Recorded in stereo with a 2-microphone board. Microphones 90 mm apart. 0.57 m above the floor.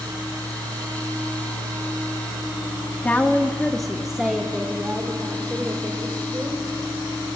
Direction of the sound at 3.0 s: 20° left (ahead or behind).